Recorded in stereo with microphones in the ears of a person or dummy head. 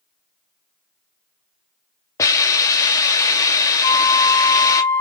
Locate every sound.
2.2 s a hiss: 15° left (ahead or behind), 1.1 m
3.8 s a flute: 35° left (ahead or behind), 0.9 m